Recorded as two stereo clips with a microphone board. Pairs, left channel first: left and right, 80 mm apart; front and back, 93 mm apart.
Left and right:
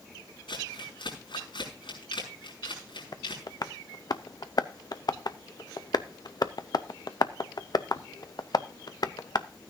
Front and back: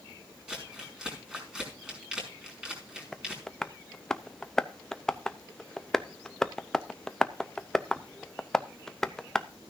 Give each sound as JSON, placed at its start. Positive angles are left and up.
{"t": 0.5, "sound": "crumpling", "azimuth_deg": 100, "distance_m": 5.5}
{"t": 3.1, "sound": "tapping", "azimuth_deg": 85, "distance_m": 0.6}